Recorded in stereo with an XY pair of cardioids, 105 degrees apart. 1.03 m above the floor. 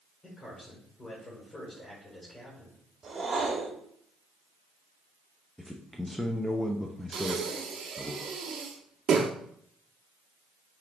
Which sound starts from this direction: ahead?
A man speaking, at 5.6 s.